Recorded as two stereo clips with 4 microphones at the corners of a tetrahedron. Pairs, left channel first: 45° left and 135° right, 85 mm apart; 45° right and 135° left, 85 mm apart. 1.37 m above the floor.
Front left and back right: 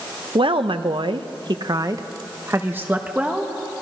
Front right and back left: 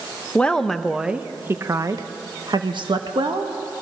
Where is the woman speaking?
120° right, 1.1 m; by 3.5 s 150° left, 1.7 m.